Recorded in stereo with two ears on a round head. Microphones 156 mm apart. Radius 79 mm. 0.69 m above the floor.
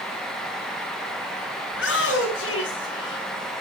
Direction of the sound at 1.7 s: 75° left (ahead or behind).